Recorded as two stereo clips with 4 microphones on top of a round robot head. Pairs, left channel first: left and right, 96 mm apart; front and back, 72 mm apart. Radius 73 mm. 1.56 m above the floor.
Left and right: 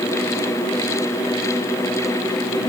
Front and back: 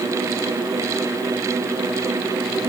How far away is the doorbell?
I don't hear a doorbell.